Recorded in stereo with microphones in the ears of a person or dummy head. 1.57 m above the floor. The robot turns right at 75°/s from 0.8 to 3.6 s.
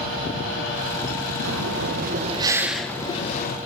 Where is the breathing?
95° right, 1.0 m; by 3.6 s 65° left, 1.0 m.